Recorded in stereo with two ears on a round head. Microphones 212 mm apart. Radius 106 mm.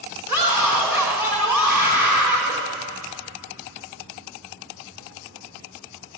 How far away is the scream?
About 4 m.